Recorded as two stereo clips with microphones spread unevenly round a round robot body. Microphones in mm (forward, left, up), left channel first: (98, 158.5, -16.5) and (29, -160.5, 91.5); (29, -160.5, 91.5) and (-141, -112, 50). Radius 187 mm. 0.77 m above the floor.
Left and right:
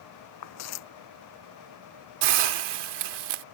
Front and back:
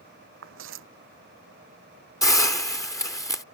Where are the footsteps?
135° left.